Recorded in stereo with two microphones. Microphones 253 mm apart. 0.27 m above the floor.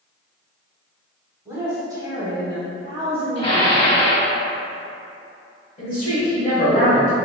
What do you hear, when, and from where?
1.4 s a woman speaking: 10° right (ahead or behind), 1.5 m; by 3.8 s 25° right (ahead or behind), 1.1 m
3.4 s dishes clattering: 20° left (ahead or behind), 1.3 m
5.8 s a woman speaking: 35° left (ahead or behind), 1.5 m